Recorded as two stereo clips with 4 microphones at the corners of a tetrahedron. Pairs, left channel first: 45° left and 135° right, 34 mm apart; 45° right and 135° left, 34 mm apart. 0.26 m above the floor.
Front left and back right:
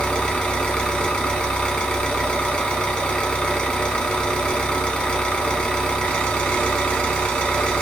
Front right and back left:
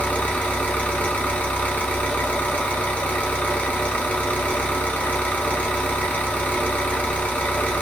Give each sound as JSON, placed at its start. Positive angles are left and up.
{"t": 0.0, "sound": "an engine running", "azimuth_deg": -10, "distance_m": 0.9}